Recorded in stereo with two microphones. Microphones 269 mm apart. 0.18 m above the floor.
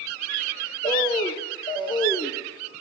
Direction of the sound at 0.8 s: 15° left (ahead or behind).